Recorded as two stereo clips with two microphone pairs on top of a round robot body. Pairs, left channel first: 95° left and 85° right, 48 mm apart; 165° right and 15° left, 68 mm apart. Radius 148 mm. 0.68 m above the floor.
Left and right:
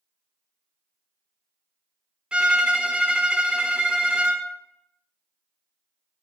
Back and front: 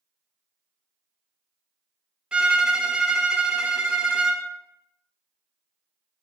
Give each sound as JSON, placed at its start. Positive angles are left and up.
{"t": 2.3, "sound": "a violin", "azimuth_deg": -50, "distance_m": 0.7}